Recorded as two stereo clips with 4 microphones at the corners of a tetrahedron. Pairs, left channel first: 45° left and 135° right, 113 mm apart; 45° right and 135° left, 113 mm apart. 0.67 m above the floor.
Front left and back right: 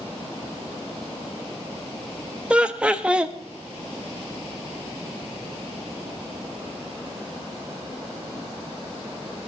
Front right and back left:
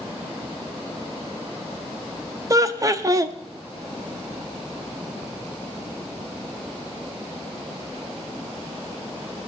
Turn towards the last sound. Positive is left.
turn(degrees=150)